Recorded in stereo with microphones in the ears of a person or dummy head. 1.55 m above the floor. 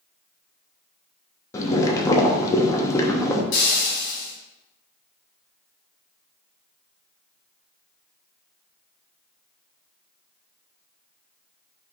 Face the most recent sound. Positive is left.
turn(degrees=65)  # may be behind; listen again after turning